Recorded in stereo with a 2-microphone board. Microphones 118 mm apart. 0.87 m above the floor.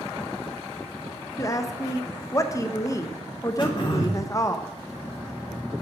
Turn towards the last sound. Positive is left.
turn(degrees=40)  # may be behind; listen again after turning